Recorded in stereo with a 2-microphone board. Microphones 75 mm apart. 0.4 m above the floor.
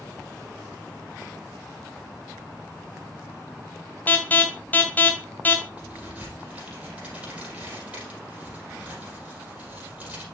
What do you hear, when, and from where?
4.1 s an alarm: 25° left (ahead or behind), 2.0 m
5.8 s a crack: 15° right (ahead or behind), 5 m